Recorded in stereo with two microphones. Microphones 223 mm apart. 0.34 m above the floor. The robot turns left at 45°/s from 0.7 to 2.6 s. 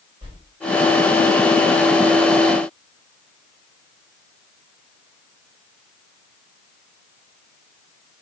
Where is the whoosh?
25° right (ahead or behind), 1.3 m.